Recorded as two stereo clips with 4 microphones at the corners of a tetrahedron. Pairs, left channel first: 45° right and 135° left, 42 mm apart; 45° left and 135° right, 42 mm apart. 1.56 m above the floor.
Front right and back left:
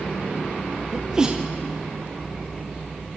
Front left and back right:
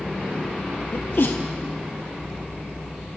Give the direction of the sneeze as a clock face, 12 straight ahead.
10 o'clock.